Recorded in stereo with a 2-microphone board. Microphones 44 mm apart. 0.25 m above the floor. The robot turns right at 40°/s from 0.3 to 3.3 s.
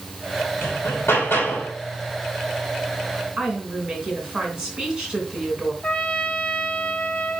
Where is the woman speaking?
10° right (ahead or behind), 3 m.